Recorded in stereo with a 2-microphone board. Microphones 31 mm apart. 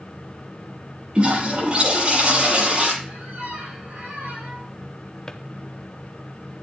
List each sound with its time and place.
1.1 s a toilet flushing: 35° right (ahead or behind), 8.5 m
3.0 s a squeak: 65° right (ahead or behind), 7 m
5.3 s a drawer: 25° left (ahead or behind), 0.7 m